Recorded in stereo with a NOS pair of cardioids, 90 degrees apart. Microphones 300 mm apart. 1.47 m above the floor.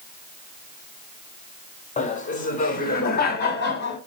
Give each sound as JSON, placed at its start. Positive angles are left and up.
{"t": 2.0, "sound": "laughter", "azimuth_deg": 25, "distance_m": 5.0}